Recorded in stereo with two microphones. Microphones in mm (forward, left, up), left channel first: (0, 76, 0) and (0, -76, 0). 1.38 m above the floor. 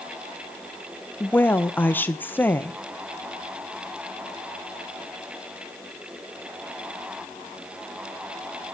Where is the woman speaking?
15° left (ahead or behind), 1.0 m.